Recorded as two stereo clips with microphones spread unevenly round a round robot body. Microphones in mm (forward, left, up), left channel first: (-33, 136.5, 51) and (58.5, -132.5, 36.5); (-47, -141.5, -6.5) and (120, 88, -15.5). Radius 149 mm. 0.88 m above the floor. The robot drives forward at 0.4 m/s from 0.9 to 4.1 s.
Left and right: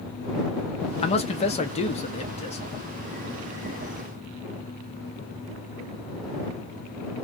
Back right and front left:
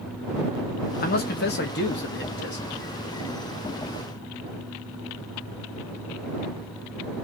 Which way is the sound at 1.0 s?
175° left.